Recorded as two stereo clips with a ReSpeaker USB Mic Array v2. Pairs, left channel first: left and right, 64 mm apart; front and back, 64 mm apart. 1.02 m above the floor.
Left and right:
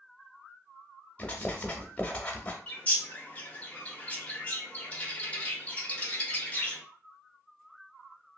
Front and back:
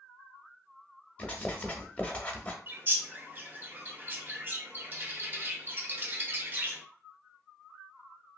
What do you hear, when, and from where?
1.2 s writing: 45° left, 0.7 m
2.7 s a bird: 145° left, 0.7 m